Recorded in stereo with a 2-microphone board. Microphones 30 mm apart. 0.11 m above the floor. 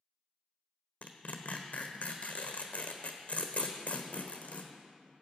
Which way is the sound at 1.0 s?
55° left (ahead or behind).